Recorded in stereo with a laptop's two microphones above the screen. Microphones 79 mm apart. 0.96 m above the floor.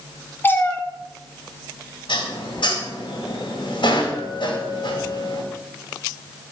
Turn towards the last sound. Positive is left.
turn(degrees=80)